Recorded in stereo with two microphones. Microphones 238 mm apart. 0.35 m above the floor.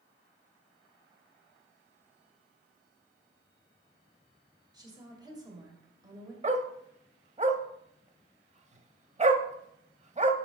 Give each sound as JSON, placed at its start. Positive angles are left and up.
{"t": 4.7, "sound": "a woman speaking", "side_deg": -15, "distance_m": 1.8}
{"t": 6.4, "sound": "a dog barking", "side_deg": -30, "distance_m": 0.6}